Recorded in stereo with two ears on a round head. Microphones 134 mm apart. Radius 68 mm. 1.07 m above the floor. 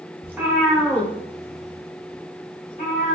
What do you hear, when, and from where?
0.2 s a cat meowing: 15° right (ahead or behind), 0.9 m; by 3.1 s 60° left (ahead or behind), 1.5 m